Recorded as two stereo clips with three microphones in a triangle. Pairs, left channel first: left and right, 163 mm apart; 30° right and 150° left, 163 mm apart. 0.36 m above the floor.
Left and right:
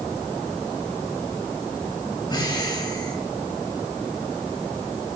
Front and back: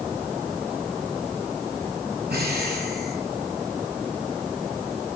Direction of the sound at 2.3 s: 150° left.